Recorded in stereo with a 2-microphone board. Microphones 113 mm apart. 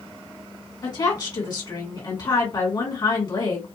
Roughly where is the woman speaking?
Left.